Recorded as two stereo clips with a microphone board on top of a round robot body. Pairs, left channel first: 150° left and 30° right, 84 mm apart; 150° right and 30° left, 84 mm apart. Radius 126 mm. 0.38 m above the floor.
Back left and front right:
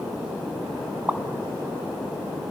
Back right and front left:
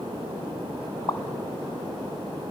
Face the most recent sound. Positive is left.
turn(degrees=-105)